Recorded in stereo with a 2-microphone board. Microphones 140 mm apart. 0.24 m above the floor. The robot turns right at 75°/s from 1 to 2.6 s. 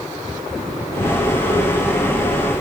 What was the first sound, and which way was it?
Only background noise.